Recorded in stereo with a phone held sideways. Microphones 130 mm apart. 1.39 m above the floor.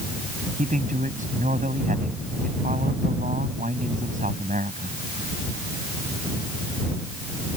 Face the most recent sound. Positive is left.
turn(degrees=-85)